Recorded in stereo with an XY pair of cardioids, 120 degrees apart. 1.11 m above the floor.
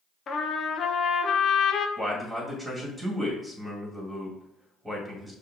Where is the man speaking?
5° right, 1.8 m.